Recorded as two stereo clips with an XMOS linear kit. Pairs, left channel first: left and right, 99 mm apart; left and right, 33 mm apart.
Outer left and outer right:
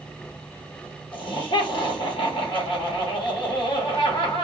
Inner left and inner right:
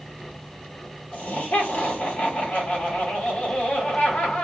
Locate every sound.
1.1 s laughter: 55° left (ahead or behind), 1.5 m